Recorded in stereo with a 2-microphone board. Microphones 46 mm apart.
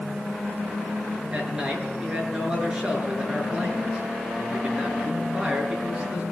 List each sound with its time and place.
1.3 s a man speaking: 20° right (ahead or behind), 7.5 m